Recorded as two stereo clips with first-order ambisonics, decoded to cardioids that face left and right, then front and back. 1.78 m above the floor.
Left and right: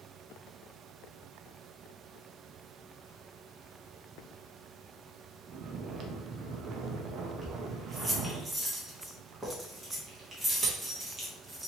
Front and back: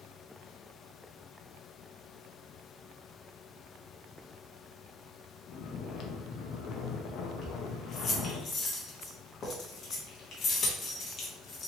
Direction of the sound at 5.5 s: 45° right.